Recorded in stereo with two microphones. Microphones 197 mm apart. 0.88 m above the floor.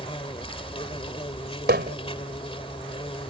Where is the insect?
25° left (ahead or behind).